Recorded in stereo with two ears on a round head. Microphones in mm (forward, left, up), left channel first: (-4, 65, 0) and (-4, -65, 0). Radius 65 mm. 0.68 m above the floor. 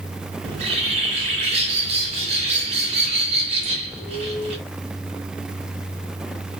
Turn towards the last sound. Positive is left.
turn(degrees=-45)  # may be behind; listen again after turning